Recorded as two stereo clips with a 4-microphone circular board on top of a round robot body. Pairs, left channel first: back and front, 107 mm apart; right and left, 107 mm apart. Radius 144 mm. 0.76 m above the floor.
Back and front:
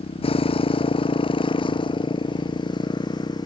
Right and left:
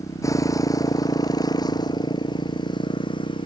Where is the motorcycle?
150° right; by 3.5 s 130° right.